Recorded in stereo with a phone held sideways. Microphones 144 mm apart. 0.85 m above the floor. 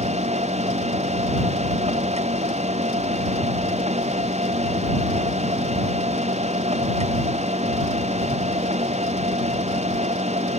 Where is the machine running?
50° right (ahead or behind).